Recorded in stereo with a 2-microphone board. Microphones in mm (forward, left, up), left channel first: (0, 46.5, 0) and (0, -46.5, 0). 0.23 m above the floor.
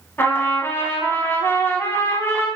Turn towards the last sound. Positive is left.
turn(degrees=25)  # may be behind; listen again after turning